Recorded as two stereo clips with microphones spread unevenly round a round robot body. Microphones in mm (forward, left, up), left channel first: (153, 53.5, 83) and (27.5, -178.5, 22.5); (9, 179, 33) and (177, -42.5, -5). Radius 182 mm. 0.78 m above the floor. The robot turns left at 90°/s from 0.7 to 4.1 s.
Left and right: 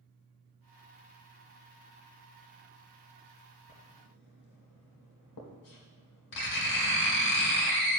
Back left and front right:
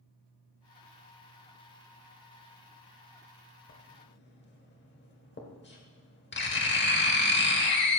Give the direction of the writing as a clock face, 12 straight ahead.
8 o'clock.